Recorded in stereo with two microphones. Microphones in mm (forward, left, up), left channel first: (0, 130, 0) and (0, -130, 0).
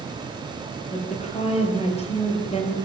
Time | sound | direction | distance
0.9 | a woman speaking | 25° left (ahead or behind) | 7 m